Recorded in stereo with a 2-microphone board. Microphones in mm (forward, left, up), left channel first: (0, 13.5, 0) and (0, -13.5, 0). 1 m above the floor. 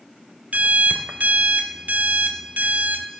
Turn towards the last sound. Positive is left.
turn(degrees=-70)  # may be behind; listen again after turning